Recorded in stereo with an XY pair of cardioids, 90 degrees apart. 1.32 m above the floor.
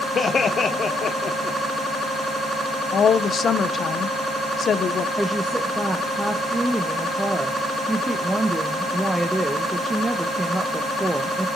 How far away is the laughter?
About 0.8 m.